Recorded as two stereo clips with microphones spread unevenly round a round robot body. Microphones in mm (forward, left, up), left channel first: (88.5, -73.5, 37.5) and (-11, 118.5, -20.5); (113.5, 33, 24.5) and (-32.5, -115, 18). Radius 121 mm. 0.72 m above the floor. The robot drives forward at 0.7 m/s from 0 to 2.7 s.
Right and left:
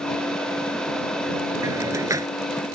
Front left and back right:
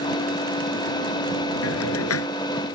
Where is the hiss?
40° left.